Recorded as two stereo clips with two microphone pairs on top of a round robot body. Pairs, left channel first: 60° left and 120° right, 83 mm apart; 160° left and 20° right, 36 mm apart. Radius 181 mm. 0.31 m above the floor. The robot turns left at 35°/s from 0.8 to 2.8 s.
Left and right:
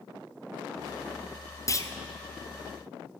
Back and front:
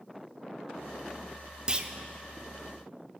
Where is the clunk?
35° left, 1.9 m; by 1.9 s 25° left, 1.9 m.